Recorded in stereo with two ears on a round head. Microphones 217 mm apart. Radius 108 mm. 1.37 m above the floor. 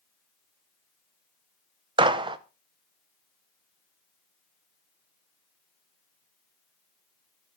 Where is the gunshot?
20° right (ahead or behind), 0.7 m.